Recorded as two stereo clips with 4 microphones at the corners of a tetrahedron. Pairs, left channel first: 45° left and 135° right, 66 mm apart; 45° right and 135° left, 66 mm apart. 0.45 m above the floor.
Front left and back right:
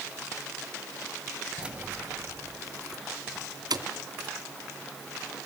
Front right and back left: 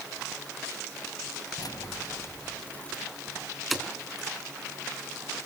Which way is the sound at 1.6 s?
60° right.